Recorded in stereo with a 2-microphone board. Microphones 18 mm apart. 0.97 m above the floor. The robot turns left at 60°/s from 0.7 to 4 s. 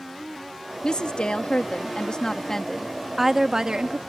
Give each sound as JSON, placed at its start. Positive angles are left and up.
{"t": 0.8, "sound": "a woman speaking", "azimuth_deg": 130}